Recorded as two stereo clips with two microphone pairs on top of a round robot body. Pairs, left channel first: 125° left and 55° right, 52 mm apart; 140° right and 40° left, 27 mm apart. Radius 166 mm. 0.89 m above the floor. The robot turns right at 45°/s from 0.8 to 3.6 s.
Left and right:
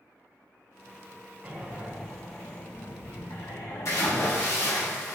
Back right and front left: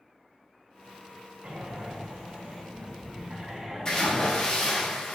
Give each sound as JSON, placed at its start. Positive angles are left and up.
{"t": 1.4, "sound": "breathing", "azimuth_deg": 5, "distance_m": 0.7}
{"t": 3.9, "sound": "a splash", "azimuth_deg": 155, "distance_m": 1.1}